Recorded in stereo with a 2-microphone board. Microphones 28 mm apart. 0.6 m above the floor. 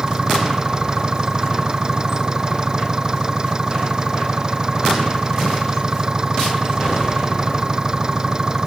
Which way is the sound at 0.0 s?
25° right (ahead or behind).